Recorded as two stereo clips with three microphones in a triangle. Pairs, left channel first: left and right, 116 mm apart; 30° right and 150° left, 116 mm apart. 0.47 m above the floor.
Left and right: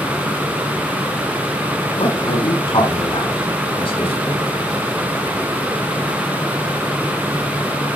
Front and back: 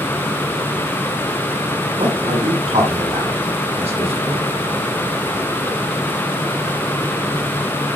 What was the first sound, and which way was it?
A man speaking, 125° left.